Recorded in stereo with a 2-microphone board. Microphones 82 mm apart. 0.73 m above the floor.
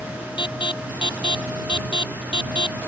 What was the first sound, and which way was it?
An alarm, 75° left (ahead or behind).